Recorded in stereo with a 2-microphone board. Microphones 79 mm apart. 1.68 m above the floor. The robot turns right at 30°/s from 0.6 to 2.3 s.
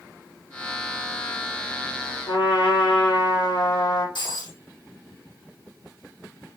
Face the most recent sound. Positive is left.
turn(degrees=80)